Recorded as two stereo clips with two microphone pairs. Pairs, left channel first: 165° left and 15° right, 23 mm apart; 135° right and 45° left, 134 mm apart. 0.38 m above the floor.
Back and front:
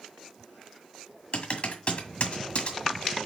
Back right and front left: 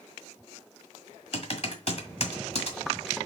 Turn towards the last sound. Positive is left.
turn(degrees=-170)